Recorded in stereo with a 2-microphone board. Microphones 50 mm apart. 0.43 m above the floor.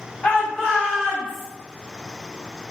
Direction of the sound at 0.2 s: 25° left (ahead or behind).